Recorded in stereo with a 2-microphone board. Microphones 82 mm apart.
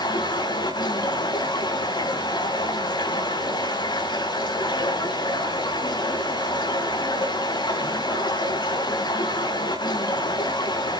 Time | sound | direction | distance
0.0 | running water | 65° left (ahead or behind) | 4.5 m